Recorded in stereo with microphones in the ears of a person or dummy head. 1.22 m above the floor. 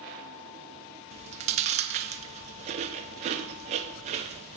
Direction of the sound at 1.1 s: 40° right (ahead or behind).